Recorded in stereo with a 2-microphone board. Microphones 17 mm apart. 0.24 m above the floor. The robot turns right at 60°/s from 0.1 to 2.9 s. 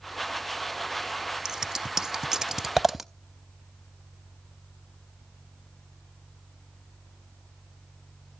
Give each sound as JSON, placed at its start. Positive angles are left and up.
{"t": 1.4, "sound": "scissors", "side_deg": -35, "distance_m": 0.5}